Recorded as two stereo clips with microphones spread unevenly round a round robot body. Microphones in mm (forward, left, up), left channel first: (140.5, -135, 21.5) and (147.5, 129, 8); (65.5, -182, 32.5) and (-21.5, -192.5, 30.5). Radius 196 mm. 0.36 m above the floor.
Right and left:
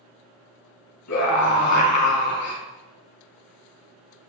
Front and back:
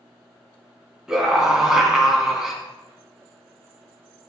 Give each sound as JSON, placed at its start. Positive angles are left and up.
{"t": 1.1, "sound": "a scream", "azimuth_deg": -90, "distance_m": 4.0}